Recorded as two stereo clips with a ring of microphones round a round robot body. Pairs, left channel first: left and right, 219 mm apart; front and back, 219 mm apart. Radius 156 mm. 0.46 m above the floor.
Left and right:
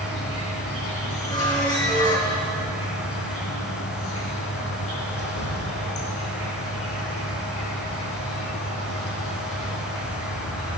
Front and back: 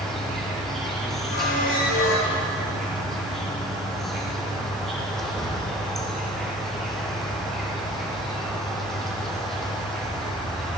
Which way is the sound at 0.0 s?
90° left.